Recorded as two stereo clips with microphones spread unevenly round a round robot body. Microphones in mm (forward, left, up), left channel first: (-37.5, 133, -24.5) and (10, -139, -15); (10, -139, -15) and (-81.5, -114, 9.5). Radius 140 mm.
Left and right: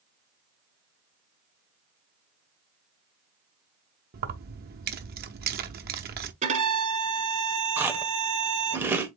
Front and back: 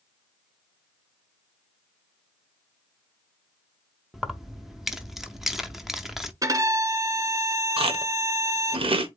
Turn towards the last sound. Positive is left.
turn(degrees=-165)